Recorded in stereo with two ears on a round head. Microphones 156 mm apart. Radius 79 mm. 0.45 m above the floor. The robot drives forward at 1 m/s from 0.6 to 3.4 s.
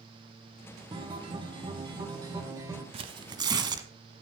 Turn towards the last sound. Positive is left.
turn(degrees=-25)  # may be behind; listen again after turning